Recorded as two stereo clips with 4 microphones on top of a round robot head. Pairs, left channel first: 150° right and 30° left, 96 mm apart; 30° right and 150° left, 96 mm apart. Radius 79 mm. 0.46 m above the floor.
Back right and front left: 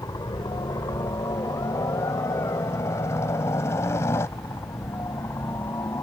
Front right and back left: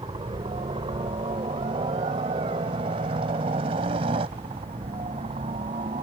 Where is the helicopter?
165° left; by 6.0 s 145° left.